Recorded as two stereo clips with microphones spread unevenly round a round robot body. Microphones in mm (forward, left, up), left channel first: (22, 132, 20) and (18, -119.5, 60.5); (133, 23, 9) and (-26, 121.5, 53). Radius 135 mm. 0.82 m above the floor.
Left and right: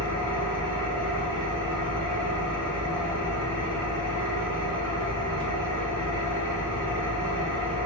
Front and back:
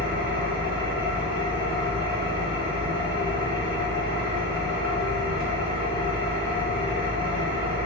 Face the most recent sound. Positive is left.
turn(degrees=180)